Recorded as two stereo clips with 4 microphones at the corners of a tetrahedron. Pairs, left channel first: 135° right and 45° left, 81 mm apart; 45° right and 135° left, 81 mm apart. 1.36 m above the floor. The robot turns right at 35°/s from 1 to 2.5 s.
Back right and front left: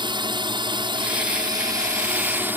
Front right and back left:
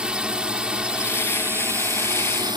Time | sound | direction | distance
0.0 | a drone | 55° left | ?